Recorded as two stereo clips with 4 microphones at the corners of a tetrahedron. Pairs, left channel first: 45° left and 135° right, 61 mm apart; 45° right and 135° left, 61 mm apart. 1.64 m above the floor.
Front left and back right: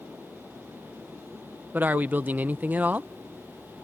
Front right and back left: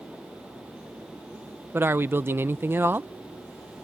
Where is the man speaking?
175° left.